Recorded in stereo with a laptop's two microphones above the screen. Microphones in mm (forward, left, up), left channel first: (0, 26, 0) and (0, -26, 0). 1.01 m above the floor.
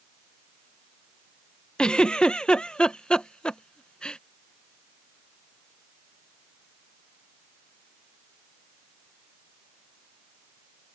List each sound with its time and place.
1.8 s a giggle: 15° left (ahead or behind)